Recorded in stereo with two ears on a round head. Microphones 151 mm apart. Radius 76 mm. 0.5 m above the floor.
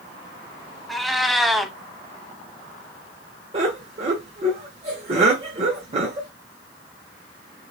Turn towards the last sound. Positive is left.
turn(degrees=-40)  # may be behind; listen again after turning